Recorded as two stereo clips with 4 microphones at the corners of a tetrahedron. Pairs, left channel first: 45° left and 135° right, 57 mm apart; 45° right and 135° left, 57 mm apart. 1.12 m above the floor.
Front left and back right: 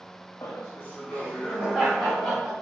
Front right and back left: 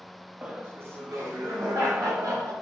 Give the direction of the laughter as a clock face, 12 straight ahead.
10 o'clock.